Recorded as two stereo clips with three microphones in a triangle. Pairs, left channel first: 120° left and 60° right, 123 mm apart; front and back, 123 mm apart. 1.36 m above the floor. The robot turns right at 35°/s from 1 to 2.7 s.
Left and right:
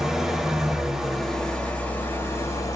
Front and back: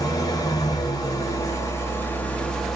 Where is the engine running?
25° left, 0.7 m; by 2.8 s 85° left, 0.7 m.